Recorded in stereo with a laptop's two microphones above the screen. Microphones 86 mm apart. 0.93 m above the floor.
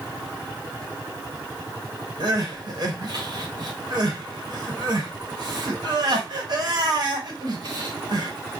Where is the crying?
55° right (ahead or behind), 0.7 m.